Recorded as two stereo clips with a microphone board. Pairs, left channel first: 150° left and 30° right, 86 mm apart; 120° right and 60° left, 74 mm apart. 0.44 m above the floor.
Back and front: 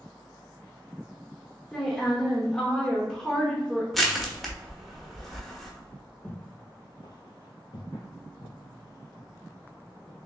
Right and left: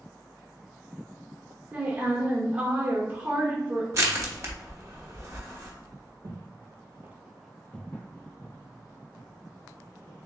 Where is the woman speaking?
85° left, 0.8 m.